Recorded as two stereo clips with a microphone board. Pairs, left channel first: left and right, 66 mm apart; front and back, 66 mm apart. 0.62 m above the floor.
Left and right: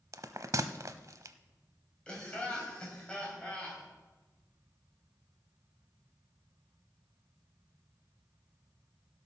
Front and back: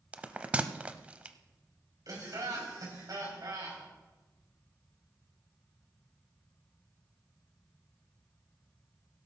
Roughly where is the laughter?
Behind.